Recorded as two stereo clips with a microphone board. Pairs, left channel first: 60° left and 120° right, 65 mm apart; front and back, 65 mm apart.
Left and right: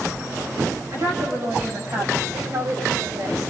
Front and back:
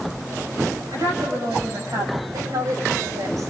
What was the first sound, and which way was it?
A woman speaking, 160° right.